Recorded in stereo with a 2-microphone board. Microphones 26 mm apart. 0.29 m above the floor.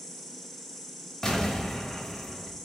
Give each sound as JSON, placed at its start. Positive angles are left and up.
{"t": 0.0, "sound": "an insect", "side_deg": 10, "distance_m": 0.9}
{"t": 1.2, "sound": "an explosion", "side_deg": 20, "distance_m": 0.8}